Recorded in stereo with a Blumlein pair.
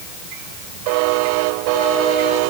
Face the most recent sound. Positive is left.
No sound to turn to.